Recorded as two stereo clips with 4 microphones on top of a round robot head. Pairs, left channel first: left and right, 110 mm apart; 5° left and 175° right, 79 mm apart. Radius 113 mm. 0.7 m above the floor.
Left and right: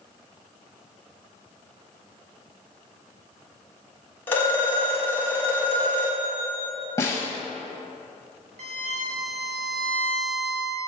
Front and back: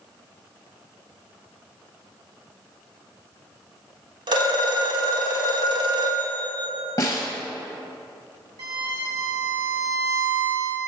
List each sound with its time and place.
4.3 s a phone ringing: 165° left, 1.5 m
7.0 s a snare drum: 35° left, 0.6 m
8.6 s a violin: 125° right, 1.1 m